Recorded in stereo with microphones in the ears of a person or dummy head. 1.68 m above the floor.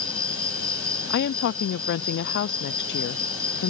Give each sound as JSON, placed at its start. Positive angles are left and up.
{"t": 0.0, "sound": "an insect", "side_deg": -15}
{"t": 1.1, "sound": "a woman speaking", "side_deg": 60}